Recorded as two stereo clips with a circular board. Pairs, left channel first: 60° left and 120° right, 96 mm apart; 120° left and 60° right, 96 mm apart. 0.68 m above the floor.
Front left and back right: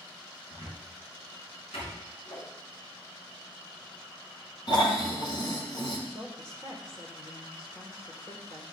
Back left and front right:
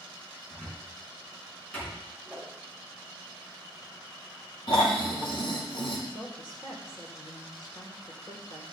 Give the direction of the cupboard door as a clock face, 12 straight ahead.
10 o'clock.